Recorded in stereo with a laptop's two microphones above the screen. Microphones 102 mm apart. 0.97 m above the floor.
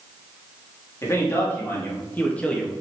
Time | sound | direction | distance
1.0 | a man speaking | 30° left (ahead or behind) | 2.5 m